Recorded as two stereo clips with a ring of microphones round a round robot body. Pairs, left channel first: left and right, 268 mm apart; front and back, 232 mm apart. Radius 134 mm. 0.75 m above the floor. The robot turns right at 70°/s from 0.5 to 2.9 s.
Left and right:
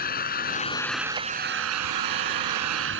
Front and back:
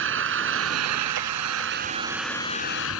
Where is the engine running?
150° left; by 3.0 s 45° right.